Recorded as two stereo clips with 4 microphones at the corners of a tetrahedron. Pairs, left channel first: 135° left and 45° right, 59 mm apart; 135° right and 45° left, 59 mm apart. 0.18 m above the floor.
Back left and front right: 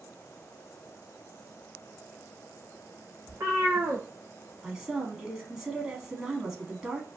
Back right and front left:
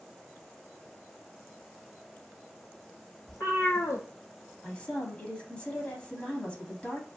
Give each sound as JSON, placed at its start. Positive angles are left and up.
{"t": 3.3, "sound": "a cat meowing", "azimuth_deg": -95, "distance_m": 1.2}
{"t": 4.6, "sound": "a woman speaking", "azimuth_deg": -105, "distance_m": 1.0}